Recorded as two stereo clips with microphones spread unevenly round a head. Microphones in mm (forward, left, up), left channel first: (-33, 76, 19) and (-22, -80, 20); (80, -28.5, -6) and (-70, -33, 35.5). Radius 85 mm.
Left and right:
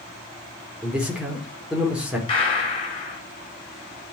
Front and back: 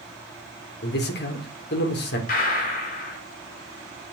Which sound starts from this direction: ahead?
A man speaking, at 0.8 s.